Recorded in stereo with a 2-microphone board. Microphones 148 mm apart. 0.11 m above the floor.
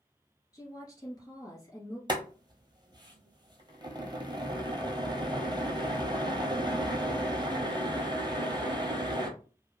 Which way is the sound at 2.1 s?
30° right (ahead or behind).